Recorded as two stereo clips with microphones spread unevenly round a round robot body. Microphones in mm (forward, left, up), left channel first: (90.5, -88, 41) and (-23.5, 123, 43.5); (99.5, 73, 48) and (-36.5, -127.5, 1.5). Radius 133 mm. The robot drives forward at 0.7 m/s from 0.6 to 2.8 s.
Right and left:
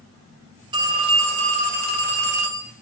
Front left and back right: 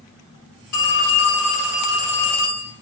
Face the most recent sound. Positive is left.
turn(degrees=85)